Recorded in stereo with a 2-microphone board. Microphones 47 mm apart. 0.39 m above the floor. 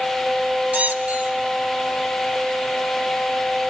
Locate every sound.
0.7 s a squeak: 30° right (ahead or behind), 0.6 m